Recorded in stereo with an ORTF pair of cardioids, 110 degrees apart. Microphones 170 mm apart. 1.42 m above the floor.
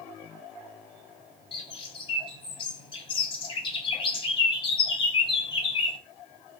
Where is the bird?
30° left, 0.7 m.